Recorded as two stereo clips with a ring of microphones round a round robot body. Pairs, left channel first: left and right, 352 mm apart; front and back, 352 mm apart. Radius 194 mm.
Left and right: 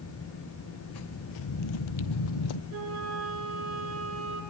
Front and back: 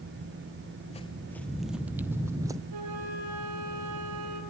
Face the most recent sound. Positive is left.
turn(degrees=-145)